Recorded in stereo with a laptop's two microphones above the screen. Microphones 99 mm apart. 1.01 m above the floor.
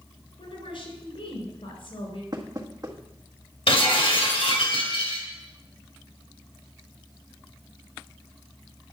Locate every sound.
0.4 s a woman speaking: 65° left (ahead or behind), 4.5 m
2.3 s knocking: 40° right (ahead or behind), 1.6 m
3.7 s breaking glass: 70° left (ahead or behind), 2 m